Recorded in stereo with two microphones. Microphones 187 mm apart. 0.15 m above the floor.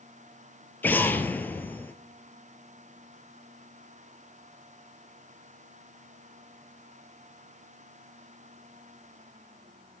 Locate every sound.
0.8 s an explosion: 10° left (ahead or behind), 0.5 m